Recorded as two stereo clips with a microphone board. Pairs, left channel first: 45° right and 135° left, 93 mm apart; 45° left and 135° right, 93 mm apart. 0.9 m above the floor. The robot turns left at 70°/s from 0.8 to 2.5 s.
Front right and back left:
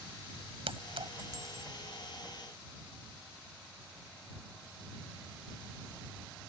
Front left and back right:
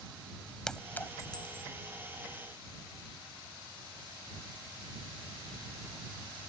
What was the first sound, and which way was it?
A clink, 125° left.